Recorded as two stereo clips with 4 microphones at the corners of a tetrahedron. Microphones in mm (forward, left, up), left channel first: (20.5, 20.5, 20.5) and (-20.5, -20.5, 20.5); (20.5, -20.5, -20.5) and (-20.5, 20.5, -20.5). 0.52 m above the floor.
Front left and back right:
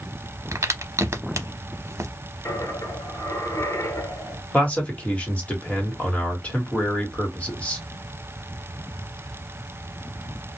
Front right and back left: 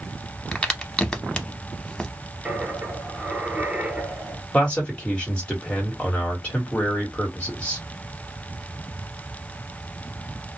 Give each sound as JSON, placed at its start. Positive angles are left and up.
{"t": 0.5, "sound": "a crack", "azimuth_deg": -120, "distance_m": 0.6}
{"t": 2.5, "sound": "a dropped coin", "azimuth_deg": 70, "distance_m": 1.6}
{"t": 4.5, "sound": "a man speaking", "azimuth_deg": 5, "distance_m": 1.2}